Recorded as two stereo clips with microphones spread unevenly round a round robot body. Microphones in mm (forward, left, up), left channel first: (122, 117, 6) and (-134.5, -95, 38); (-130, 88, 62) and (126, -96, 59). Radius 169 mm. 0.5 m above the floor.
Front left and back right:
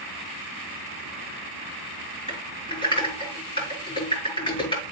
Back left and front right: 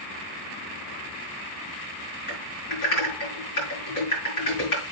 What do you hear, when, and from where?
2.3 s typing on a keyboard: 115° left, 6.5 m